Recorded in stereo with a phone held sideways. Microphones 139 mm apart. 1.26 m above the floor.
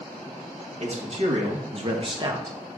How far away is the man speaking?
About 2.5 m.